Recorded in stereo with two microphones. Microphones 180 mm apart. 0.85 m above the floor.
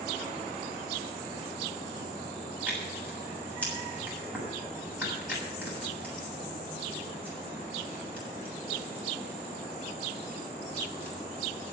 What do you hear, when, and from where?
2.7 s tearing paper: 10° right (ahead or behind), 7 m